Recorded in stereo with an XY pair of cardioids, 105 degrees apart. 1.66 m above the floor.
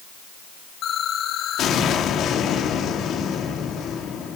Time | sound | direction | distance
0.8 | an explosion | 70° left | 4.5 m